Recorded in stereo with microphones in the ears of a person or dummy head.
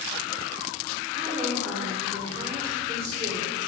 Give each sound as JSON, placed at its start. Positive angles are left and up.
{"t": 1.1, "sound": "a woman speaking", "side_deg": -40, "distance_m": 3.5}